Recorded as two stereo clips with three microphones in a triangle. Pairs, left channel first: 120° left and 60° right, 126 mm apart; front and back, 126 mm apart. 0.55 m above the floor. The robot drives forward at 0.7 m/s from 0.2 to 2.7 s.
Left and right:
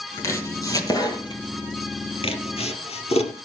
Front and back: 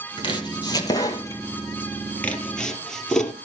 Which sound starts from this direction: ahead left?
Chopping, at 0.2 s.